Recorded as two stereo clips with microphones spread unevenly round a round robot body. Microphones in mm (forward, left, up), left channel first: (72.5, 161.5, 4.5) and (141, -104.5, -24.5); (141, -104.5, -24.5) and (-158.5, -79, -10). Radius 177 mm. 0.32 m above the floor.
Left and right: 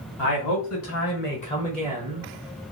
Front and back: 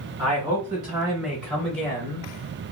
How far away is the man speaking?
About 1.8 m.